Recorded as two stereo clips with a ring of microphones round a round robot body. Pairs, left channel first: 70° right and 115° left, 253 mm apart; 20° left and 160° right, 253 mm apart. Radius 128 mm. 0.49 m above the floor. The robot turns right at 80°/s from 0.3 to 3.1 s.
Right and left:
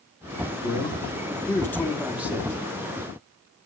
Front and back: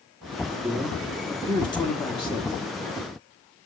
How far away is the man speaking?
About 1.4 m.